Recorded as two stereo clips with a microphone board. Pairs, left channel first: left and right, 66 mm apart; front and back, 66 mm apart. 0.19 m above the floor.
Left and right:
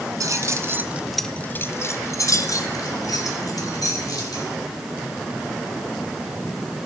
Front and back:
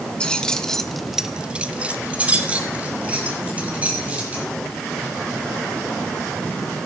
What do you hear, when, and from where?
0.2 s keys jangling: 75° right, 1.3 m; by 4.5 s 110° left, 4 m